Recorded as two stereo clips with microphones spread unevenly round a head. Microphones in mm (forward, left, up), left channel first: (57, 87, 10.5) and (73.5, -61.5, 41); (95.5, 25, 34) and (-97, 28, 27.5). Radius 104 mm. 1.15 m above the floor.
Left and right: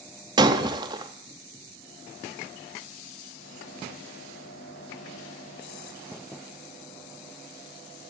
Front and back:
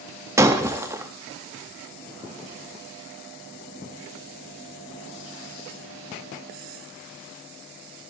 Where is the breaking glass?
110° right, 0.6 m.